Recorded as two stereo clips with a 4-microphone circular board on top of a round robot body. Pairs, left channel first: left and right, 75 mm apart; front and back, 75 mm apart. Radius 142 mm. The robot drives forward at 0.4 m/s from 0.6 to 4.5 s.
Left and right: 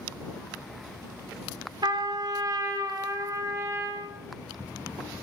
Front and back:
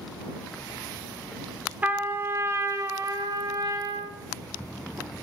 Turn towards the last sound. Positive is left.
turn(degrees=-150)